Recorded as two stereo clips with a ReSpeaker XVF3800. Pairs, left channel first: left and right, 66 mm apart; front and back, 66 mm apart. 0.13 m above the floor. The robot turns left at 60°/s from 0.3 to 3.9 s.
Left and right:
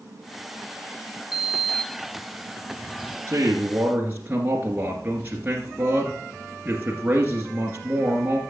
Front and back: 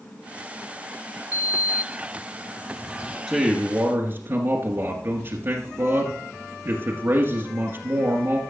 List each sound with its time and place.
1.3 s a sliding door: 170° right, 1.2 m; by 3.2 s 80° left, 1.2 m
3.3 s a man speaking: 110° right, 1.6 m; by 8.4 s 145° right, 1.6 m